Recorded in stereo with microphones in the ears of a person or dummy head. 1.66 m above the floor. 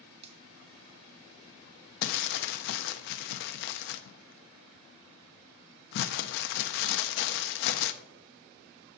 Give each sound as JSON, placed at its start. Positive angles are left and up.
{"t": 0.2, "sound": "a finger snap", "side_deg": -30, "distance_m": 0.9}
{"t": 2.0, "sound": "crumpling", "side_deg": 50, "distance_m": 0.5}